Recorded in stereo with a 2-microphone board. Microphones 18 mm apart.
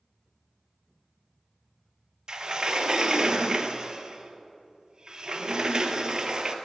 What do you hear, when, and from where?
2.3 s a sliding door: 45° right (ahead or behind), 0.9 m